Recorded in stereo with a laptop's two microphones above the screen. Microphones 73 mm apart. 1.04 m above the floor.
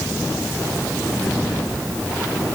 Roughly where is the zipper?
I don't hear a zipper.